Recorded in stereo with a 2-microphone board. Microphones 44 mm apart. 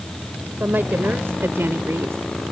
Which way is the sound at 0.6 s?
55° right (ahead or behind).